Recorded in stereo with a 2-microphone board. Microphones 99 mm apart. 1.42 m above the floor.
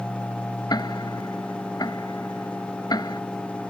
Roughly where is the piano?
No piano in this recording.